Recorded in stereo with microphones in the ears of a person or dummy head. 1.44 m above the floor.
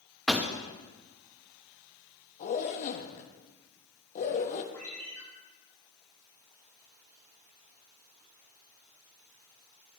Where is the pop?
Centre (ahead or behind), 0.9 m.